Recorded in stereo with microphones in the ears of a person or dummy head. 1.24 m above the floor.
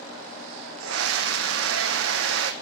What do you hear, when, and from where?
0.8 s a scream: 75° right (ahead or behind), 0.7 m